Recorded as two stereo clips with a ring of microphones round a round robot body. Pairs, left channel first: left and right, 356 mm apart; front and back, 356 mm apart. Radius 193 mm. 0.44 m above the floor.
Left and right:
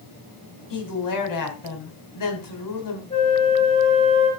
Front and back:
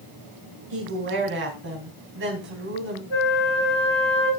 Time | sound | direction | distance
0.7 | a woman speaking | 120° left | 3 m
3.1 | a flute | 15° left | 5 m